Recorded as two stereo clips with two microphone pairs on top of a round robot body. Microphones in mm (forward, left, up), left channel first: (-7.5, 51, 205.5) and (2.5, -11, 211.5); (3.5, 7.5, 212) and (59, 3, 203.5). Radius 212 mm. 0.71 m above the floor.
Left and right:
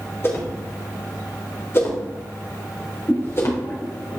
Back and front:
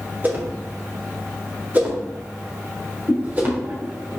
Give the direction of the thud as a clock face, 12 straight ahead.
No thud in this recording.